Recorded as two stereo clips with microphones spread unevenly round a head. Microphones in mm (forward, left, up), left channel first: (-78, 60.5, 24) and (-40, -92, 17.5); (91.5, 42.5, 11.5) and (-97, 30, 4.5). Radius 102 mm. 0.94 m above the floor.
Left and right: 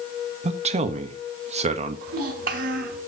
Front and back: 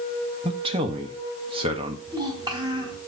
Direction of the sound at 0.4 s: 115° right.